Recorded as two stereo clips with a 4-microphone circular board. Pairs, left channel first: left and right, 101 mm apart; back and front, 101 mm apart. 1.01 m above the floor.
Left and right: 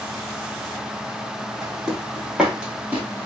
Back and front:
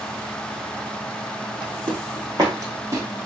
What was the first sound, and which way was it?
Footsteps, 5° right.